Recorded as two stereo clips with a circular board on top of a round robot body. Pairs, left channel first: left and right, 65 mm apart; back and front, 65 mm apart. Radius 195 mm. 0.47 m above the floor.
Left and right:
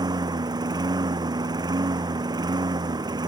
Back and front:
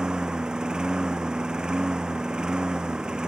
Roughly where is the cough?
I don't hear a cough.